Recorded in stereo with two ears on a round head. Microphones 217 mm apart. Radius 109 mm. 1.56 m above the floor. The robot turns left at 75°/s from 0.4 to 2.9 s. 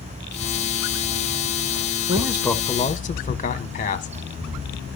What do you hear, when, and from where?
2.1 s a man speaking: 155° right, 1.6 m; by 4.1 s 145° left, 1.6 m